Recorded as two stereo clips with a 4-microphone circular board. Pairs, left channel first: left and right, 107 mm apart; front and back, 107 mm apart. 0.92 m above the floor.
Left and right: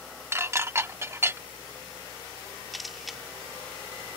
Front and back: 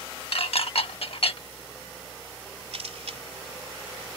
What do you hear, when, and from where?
0.3 s dishes clattering: 25° right
2.7 s a camera shutter: straight behind